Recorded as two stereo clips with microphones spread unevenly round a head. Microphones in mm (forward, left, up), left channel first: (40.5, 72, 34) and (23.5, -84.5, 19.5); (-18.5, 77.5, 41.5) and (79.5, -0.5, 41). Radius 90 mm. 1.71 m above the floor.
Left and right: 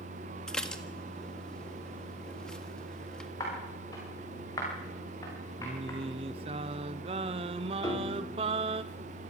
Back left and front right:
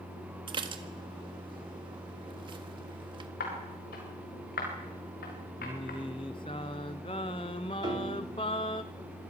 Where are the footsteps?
155° left, 8.5 m.